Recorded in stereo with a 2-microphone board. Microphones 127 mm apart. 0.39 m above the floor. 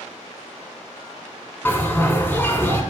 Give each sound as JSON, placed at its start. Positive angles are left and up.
{"t": 1.6, "sound": "a bell", "side_deg": 15, "distance_m": 1.1}